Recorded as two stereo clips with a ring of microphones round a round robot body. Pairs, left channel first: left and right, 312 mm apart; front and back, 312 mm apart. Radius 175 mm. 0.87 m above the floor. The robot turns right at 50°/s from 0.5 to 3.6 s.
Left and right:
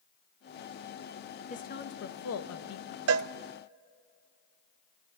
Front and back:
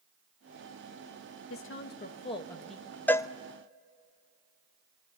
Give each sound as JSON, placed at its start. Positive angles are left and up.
{"t": 1.5, "sound": "a woman speaking", "azimuth_deg": 30, "distance_m": 1.3}
{"t": 3.1, "sound": "a cowbell", "azimuth_deg": -85, "distance_m": 0.5}